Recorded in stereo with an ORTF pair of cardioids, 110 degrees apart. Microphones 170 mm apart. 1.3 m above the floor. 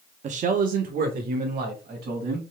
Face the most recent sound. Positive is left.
turn(degrees=-65)